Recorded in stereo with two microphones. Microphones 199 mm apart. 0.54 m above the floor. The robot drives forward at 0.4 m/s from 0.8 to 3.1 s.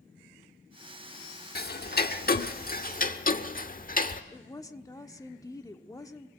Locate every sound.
1.6 s ticking: 55° left (ahead or behind), 1.1 m; by 4.2 s 45° left (ahead or behind), 1.2 m
4.3 s a woman speaking: 20° left (ahead or behind), 1.2 m